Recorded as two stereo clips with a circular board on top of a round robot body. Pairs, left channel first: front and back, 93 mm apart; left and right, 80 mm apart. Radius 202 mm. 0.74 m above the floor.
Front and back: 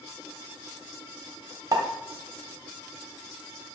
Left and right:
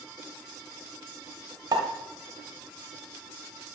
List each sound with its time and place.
1.7 s a pop: 125° right, 1.0 m